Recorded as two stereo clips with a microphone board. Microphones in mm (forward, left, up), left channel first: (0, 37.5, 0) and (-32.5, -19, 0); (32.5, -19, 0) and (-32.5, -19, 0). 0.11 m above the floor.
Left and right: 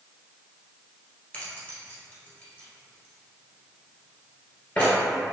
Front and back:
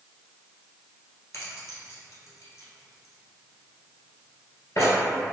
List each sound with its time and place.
1.3 s keys jangling: 5° left, 1.4 m